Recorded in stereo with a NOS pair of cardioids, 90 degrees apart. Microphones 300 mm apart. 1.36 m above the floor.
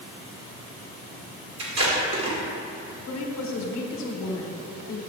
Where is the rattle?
I don't hear a rattle.